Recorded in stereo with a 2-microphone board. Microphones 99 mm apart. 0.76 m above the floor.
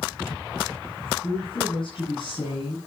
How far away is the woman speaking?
About 7.5 m.